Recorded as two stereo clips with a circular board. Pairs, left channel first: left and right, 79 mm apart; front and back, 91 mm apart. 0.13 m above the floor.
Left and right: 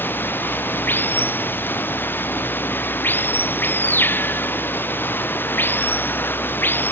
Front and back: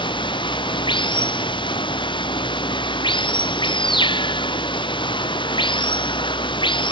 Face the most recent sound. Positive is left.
turn(degrees=25)